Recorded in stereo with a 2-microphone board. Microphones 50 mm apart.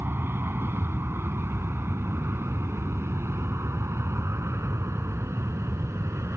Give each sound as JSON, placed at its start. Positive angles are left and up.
{"t": 0.0, "sound": "an aircraft", "side_deg": -50}